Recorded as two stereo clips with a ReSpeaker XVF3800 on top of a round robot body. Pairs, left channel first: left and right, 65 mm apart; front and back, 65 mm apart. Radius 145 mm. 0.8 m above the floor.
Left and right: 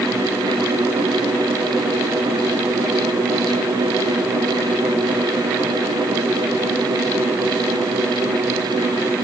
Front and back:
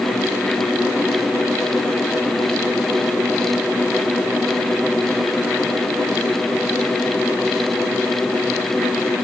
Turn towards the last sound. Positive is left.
No sound to turn to.